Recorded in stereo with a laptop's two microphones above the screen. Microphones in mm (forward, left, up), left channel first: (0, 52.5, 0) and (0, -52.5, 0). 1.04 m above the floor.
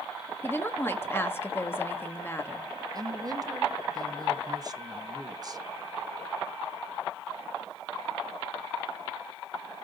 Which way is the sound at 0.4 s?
20° left (ahead or behind).